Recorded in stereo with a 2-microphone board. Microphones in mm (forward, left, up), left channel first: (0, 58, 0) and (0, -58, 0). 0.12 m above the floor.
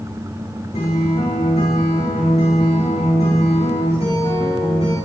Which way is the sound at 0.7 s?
70° left (ahead or behind).